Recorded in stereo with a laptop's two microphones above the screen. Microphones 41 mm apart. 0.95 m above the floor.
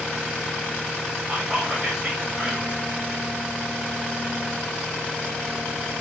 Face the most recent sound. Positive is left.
turn(degrees=-10)  # may be behind; listen again after turning